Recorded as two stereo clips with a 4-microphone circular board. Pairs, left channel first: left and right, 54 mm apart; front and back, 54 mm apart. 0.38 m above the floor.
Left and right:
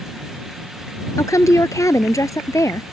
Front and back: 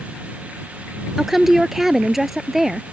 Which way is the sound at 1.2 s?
95° left.